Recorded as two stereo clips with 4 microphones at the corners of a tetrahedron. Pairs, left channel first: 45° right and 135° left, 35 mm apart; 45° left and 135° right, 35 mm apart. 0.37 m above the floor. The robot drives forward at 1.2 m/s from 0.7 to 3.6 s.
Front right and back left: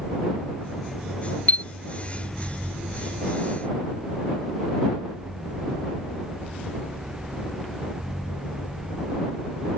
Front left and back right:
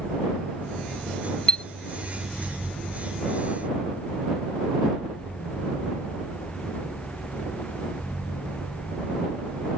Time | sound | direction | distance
1.5 | a chime | 15° right | ?